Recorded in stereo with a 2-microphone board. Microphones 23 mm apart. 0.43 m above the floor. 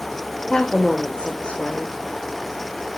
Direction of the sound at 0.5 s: 35° left (ahead or behind).